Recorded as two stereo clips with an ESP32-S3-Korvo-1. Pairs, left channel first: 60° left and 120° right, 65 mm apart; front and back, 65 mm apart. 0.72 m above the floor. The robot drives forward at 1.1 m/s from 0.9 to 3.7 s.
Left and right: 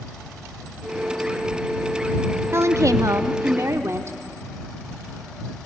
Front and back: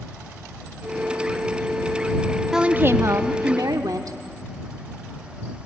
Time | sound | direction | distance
2.5 | a woman speaking | 95° right | 0.6 m